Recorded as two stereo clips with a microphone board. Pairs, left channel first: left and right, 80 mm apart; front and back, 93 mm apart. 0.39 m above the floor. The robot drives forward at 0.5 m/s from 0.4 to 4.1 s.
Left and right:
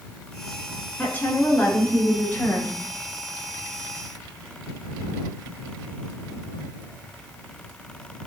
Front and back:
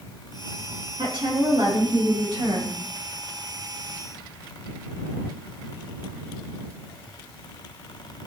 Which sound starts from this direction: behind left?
A woman speaking, at 1.0 s.